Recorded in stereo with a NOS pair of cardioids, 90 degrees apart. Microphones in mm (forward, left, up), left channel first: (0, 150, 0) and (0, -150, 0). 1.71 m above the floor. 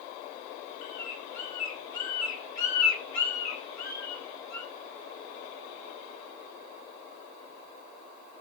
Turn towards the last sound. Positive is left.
turn(degrees=70)